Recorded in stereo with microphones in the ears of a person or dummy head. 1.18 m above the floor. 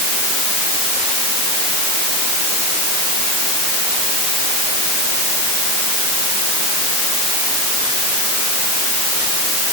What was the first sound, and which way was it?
Only background noise.